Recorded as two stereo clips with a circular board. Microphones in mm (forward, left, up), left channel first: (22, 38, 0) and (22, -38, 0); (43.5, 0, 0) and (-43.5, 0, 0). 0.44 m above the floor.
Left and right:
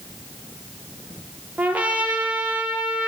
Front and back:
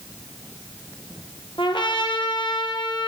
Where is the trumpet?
20° right, 3.5 m.